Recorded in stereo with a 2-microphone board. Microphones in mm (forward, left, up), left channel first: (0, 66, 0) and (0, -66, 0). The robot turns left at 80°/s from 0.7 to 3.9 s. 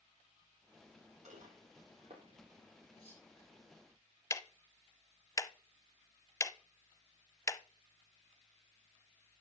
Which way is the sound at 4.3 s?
20° left (ahead or behind).